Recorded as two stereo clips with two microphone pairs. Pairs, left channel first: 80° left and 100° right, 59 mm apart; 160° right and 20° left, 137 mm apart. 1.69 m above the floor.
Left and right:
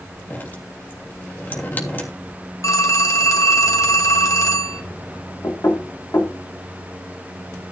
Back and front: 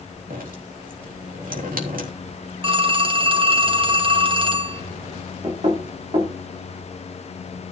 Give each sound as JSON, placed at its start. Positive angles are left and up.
{"t": 0.3, "sound": "dripping", "azimuth_deg": 25, "distance_m": 3.0}
{"t": 2.6, "sound": "a phone ringing", "azimuth_deg": 65, "distance_m": 1.5}
{"t": 5.4, "sound": "knocking", "azimuth_deg": 60, "distance_m": 3.0}